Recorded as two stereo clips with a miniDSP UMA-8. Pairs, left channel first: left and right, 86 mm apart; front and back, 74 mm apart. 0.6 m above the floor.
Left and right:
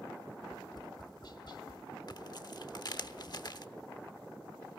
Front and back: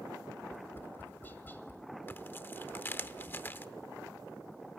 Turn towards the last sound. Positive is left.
turn(degrees=60)